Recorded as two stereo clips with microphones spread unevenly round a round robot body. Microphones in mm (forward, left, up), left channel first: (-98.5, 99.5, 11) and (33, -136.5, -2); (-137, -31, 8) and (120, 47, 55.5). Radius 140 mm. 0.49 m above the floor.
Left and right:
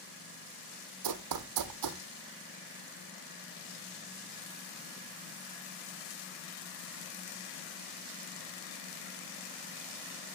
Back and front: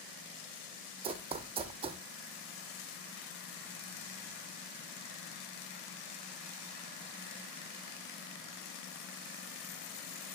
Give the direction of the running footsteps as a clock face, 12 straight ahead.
2 o'clock.